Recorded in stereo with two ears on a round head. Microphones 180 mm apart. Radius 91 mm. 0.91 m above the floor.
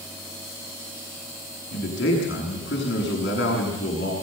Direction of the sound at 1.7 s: 60° left (ahead or behind).